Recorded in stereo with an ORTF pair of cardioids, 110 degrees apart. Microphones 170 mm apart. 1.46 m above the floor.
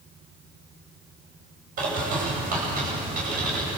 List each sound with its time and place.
1.8 s a bird: 55° right, 9.5 m